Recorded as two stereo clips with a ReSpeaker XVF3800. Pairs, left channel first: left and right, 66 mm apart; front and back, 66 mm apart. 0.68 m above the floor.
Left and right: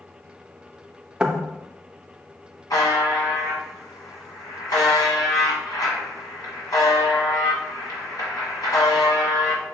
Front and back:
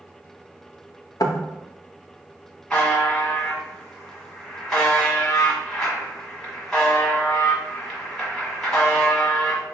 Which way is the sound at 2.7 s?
85° left.